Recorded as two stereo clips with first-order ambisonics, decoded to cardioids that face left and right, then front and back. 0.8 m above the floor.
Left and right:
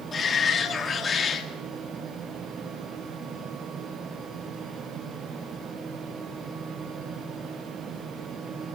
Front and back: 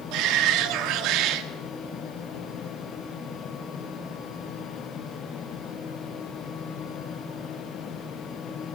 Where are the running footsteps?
No running footsteps in this recording.